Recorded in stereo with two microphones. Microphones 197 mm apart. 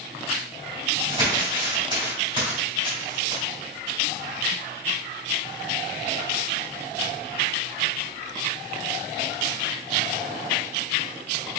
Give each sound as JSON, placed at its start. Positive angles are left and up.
{"t": 1.1, "sound": "crumpling", "side_deg": -25, "distance_m": 1.5}